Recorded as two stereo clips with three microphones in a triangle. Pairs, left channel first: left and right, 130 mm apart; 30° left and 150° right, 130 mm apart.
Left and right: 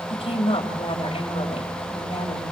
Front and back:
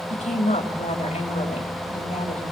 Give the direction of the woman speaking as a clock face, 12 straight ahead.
10 o'clock.